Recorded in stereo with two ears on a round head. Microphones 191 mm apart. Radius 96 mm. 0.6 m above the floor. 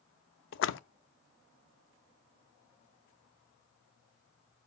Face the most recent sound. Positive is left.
turn(degrees=60)  # may be behind; listen again after turning